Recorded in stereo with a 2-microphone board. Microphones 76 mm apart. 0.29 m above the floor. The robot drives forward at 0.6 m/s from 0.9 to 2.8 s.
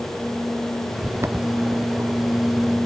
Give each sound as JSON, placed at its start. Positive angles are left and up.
{"t": 1.0, "sound": "footsteps", "side_deg": -35}